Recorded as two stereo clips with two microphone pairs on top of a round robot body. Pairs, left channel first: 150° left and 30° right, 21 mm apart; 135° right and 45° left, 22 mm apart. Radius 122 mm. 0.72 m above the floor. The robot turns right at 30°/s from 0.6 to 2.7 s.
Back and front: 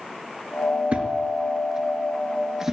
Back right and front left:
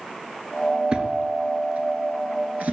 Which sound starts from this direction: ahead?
A thud, at 0.9 s.